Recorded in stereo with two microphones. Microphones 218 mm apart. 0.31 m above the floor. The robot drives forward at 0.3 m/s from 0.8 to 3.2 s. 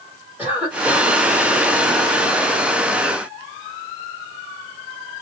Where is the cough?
10° right (ahead or behind), 1.4 m.